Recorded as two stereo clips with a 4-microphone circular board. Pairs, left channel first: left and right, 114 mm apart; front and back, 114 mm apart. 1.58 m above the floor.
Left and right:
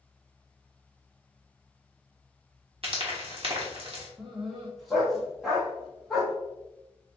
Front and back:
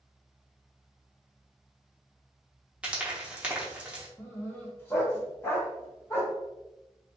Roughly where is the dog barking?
Ahead.